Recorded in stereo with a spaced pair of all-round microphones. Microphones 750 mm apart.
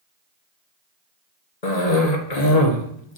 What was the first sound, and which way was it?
A cough, 55° left (ahead or behind).